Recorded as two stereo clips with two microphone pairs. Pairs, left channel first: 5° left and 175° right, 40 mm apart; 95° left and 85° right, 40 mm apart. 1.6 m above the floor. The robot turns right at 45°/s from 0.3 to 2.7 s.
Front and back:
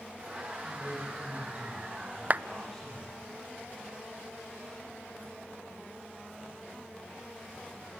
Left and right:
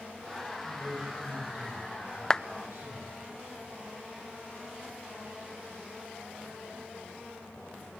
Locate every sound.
0.6 s a man speaking: 175° right, 9 m; by 3.2 s 80° right, 9 m
2.3 s a clap: 155° left, 0.6 m; by 2.4 s 165° left, 0.6 m